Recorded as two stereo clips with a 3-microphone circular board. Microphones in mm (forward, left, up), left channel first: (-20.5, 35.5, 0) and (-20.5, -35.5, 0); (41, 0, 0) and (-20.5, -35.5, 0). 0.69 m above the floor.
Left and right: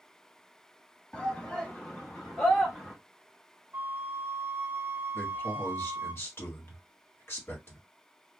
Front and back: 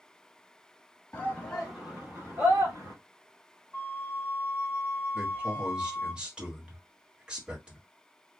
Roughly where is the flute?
Ahead right.